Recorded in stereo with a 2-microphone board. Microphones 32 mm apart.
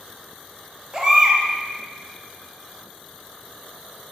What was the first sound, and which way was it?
A baby crying, 20° right (ahead or behind).